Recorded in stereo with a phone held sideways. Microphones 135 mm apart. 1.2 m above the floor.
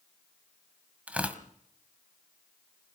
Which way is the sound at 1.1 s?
10° right (ahead or behind).